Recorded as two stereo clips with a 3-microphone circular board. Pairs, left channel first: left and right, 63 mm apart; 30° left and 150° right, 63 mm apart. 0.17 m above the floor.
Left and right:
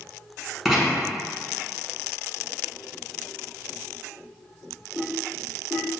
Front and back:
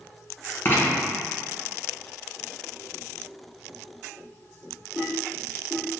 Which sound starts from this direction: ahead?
Writing, at 0.7 s.